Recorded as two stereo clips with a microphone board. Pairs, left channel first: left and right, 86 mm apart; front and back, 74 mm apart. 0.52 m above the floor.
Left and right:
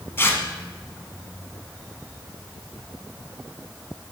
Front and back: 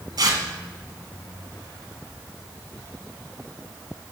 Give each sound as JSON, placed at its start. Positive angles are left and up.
{"t": 0.2, "sound": "tearing paper", "azimuth_deg": 155, "distance_m": 1.1}